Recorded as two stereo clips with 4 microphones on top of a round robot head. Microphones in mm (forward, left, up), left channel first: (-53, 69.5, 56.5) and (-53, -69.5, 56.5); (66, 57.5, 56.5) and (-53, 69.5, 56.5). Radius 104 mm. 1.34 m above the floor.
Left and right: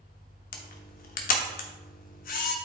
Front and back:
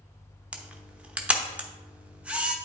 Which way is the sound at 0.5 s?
95° left.